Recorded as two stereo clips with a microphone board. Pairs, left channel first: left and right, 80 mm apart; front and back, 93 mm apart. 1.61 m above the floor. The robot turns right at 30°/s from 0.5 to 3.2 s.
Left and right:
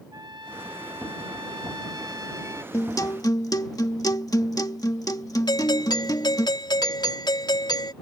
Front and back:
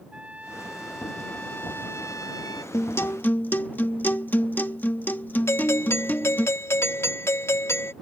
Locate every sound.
0.1 s a trumpet: 105° right; by 2.6 s 40° right
2.7 s a guitar: 50° left; by 6.5 s 65° left
5.5 s a doorbell: 60° left